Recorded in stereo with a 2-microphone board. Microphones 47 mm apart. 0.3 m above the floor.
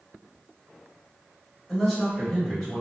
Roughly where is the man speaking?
Centre.